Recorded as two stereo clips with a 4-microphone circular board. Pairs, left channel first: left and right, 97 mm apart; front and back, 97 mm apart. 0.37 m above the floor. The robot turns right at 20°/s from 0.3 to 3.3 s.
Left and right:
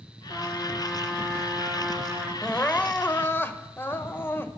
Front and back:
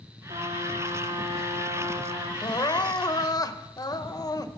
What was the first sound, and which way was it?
A trumpet, 150° left.